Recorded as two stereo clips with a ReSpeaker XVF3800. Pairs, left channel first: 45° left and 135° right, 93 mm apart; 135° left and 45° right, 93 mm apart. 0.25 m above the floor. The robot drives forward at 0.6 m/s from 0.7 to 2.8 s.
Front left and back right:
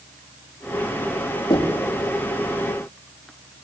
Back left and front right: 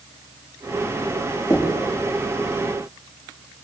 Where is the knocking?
85° left, 6 m; by 1.8 s 90° left, 6 m.